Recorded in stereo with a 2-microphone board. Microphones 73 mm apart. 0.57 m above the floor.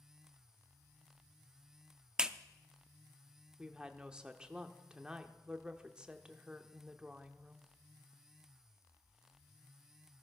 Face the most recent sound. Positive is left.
turn(degrees=-10)  # may be behind; listen again after turning